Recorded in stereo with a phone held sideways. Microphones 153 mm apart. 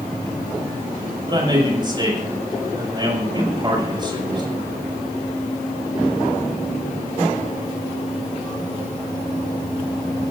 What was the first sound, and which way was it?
A man speaking, 30° right (ahead or behind).